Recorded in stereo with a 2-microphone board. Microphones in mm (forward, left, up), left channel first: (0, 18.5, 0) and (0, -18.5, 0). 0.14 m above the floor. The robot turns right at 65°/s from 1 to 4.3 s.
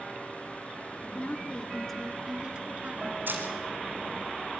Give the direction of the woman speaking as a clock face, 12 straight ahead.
8 o'clock.